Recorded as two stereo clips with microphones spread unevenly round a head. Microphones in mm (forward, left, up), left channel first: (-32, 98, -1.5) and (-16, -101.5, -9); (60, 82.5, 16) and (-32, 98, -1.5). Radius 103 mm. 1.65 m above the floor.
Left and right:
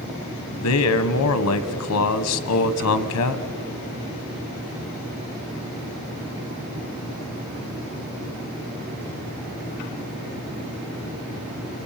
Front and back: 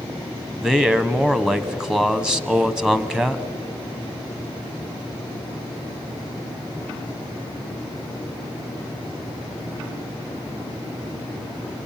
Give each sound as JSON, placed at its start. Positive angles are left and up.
{"t": 0.5, "sound": "a man speaking", "azimuth_deg": 85, "distance_m": 1.2}